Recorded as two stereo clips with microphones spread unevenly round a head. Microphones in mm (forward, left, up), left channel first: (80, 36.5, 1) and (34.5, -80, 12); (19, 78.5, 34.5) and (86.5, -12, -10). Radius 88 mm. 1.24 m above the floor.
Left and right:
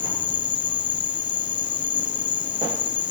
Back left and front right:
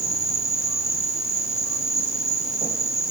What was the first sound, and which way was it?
An insect, 65° left.